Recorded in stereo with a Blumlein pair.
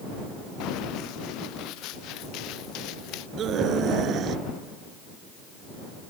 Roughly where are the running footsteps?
Ahead left.